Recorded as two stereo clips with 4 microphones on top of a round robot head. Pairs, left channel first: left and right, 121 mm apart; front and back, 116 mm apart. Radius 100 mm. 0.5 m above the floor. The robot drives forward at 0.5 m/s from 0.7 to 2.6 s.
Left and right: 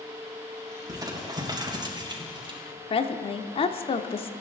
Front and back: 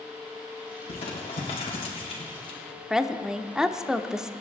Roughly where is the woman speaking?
Left.